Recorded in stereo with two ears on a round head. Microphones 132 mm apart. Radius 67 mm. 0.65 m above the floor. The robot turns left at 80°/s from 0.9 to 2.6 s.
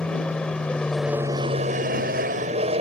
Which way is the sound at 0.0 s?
5° left.